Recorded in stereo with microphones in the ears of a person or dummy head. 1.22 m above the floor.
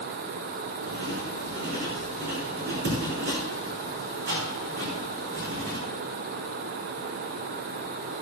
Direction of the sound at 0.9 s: 65° right (ahead or behind).